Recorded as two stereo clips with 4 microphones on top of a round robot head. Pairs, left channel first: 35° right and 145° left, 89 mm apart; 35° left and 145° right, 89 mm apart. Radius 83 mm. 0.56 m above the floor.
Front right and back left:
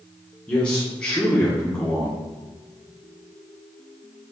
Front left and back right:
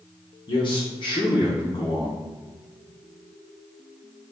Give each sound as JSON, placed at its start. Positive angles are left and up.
{"t": 0.5, "sound": "a man speaking", "azimuth_deg": 30, "distance_m": 1.5}